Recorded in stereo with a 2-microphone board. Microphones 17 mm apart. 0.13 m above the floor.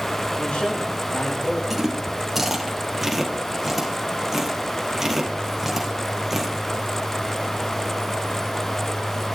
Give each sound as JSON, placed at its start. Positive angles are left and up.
{"t": 0.4, "sound": "a man speaking", "side_deg": 75, "distance_m": 7.5}
{"t": 1.7, "sound": "chewing", "side_deg": -10, "distance_m": 3.5}